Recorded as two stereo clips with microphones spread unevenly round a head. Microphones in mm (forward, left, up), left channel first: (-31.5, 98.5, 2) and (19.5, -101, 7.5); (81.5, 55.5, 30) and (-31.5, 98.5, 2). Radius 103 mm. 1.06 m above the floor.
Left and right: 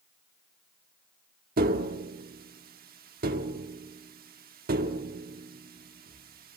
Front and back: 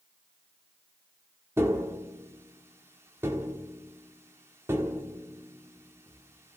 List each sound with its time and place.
1.6 s tapping: 120° right, 1.3 m